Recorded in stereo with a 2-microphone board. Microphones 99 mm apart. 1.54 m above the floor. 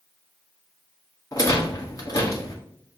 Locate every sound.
1.3 s a rattle: 35° left (ahead or behind), 0.9 m